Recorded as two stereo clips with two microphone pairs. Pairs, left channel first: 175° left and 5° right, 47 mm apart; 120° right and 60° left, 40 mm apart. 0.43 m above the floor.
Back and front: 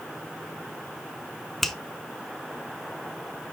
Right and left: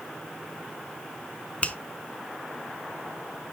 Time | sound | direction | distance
1.6 | a finger snap | 100° right | 0.9 m